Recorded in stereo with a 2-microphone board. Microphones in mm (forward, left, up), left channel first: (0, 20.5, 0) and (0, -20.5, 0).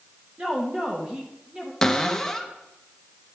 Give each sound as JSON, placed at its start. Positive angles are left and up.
{"t": 0.4, "sound": "a woman speaking", "side_deg": -25, "distance_m": 1.1}
{"t": 1.8, "sound": "a cupboard door", "side_deg": 10, "distance_m": 0.6}